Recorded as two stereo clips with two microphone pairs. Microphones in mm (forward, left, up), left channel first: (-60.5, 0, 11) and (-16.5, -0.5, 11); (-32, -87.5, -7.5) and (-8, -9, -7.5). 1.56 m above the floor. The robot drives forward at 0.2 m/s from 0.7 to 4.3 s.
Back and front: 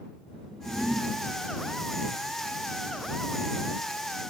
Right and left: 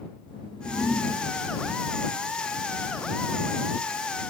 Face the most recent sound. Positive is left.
turn(degrees=-120)